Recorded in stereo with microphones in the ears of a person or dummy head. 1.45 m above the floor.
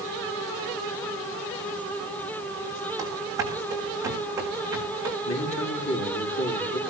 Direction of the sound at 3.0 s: 20° right (ahead or behind).